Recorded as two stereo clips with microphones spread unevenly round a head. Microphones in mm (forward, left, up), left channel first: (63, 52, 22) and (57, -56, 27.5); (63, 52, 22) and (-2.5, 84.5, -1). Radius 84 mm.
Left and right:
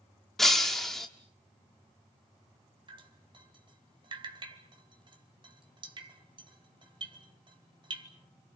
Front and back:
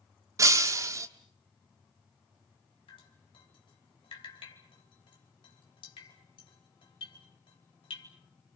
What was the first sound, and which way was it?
Breaking glass, straight behind.